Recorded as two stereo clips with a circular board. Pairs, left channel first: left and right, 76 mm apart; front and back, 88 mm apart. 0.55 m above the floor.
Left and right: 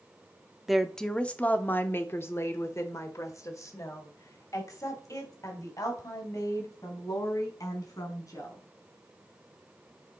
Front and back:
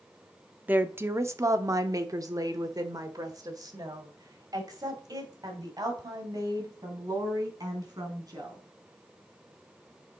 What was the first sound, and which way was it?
A woman speaking, 170° right.